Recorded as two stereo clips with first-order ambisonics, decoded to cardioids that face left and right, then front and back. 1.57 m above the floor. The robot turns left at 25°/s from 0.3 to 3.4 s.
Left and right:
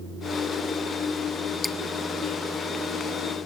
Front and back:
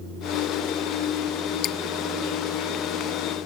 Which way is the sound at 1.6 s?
10° left.